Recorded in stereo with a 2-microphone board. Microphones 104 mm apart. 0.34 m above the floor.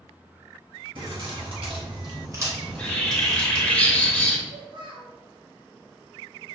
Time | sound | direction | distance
0.9 | keys jangling | 55° right (ahead or behind) | 1.3 m
2.6 | a bird | 10° left (ahead or behind) | 0.5 m
4.5 | a child speaking | 55° right (ahead or behind) | 1.5 m